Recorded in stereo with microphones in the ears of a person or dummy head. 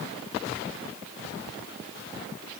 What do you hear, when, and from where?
Only background noise.